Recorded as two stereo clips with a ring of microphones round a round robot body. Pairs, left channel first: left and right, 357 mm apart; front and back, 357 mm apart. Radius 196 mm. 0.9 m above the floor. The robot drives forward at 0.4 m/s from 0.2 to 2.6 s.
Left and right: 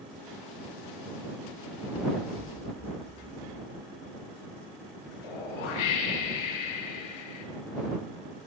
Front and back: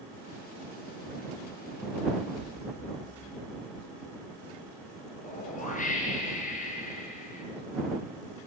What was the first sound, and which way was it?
An explosion, 15° right.